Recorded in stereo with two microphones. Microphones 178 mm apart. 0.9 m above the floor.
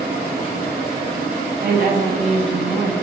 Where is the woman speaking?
65° right (ahead or behind), 0.6 m; by 2.9 s 10° right (ahead or behind), 0.8 m.